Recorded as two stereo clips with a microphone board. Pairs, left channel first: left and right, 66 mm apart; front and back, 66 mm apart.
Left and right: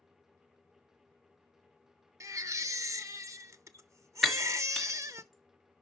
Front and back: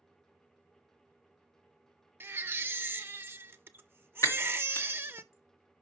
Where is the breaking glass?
Straight ahead, 1.4 m.